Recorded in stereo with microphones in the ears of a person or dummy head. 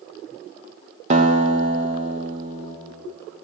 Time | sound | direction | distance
1.1 | a guitar | 35° right (ahead or behind) | 0.6 m